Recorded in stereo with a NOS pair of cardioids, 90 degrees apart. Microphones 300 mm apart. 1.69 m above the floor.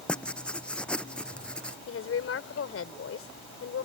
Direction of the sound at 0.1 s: 5° left.